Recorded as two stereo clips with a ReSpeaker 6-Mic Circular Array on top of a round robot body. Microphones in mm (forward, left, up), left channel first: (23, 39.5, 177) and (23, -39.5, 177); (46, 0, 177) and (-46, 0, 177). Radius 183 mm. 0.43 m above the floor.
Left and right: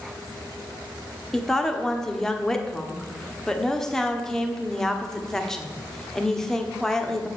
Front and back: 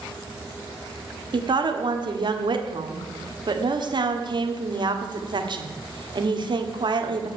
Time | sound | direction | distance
1.3 | a woman speaking | 170° left | 1.6 m